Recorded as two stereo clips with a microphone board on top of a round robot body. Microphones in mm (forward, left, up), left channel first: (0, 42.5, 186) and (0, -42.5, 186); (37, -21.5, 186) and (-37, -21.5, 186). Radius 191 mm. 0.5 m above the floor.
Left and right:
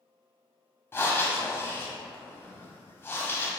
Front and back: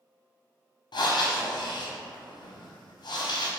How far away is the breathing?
About 0.5 m.